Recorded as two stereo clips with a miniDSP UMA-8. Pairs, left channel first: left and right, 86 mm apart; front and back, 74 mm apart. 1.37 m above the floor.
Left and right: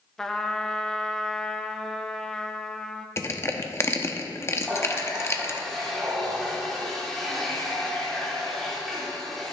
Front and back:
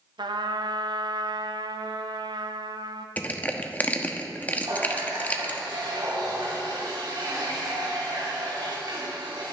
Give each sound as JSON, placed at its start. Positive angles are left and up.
{"t": 0.2, "sound": "a trumpet", "azimuth_deg": 175, "distance_m": 0.7}
{"t": 3.2, "sound": "crushing", "azimuth_deg": 55, "distance_m": 0.9}
{"t": 4.6, "sound": "a running tap", "azimuth_deg": 175, "distance_m": 3.0}